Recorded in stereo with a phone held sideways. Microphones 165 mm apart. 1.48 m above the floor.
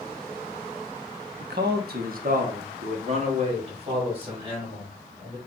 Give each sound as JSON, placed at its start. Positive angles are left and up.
{"t": 1.4, "sound": "a man speaking", "side_deg": -80, "distance_m": 0.6}